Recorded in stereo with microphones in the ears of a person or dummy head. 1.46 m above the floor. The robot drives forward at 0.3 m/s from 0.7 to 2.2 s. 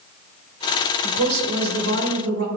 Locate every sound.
1.0 s a woman speaking: 85° right, 2.0 m; by 2.5 s 80° right, 2.0 m